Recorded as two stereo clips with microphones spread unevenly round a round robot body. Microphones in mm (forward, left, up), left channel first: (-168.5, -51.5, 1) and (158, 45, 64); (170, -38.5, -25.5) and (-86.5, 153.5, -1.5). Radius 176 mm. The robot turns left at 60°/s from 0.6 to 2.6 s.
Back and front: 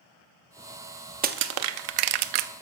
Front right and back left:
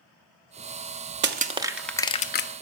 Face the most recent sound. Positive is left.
turn(degrees=5)